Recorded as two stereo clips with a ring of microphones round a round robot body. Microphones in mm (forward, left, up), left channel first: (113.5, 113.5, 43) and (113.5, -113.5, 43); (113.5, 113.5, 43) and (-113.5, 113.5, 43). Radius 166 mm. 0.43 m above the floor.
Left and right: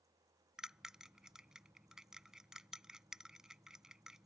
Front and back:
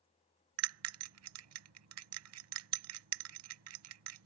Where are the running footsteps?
No running footsteps in this recording.